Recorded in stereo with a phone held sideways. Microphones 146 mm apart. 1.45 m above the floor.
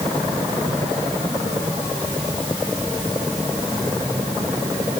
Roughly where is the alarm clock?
I don't hear an alarm clock.